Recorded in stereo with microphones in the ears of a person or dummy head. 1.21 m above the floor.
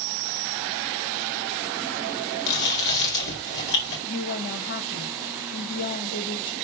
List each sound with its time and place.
2.5 s chewing: 55° left (ahead or behind), 4.5 m
4.1 s a woman speaking: 45° left (ahead or behind), 1.4 m